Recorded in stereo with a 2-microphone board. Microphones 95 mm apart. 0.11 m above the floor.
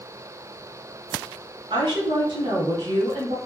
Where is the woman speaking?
55° right (ahead or behind), 1.8 m.